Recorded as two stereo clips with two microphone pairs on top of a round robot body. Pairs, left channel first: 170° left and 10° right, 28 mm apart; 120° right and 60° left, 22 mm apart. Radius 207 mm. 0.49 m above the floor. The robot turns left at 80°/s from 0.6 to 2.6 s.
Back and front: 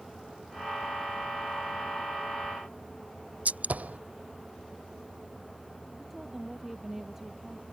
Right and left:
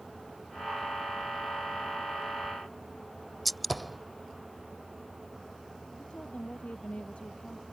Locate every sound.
3.5 s a gunshot: 35° right
6.0 s a woman speaking: 85° right